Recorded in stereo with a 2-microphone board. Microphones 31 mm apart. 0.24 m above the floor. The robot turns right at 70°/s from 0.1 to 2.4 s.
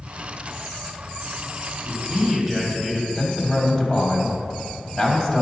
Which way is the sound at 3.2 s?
20° left (ahead or behind).